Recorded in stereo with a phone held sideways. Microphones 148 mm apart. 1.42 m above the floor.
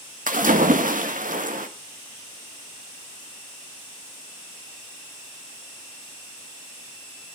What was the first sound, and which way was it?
A splash, 65° right (ahead or behind).